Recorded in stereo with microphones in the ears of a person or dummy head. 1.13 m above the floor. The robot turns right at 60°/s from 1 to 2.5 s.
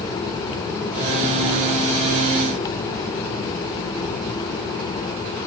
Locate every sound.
Only background noise.